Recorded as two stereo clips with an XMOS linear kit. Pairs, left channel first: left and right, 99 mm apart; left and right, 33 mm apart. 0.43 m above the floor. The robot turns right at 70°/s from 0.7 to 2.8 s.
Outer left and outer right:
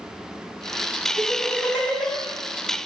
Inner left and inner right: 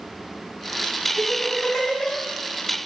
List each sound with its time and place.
1.2 s laughter: 55° left (ahead or behind), 3.5 m; by 2.2 s 5° right (ahead or behind), 3.5 m